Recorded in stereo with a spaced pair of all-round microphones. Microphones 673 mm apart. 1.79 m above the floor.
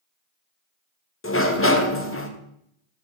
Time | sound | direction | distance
1.2 | a sliding door | 20° left (ahead or behind) | 0.7 m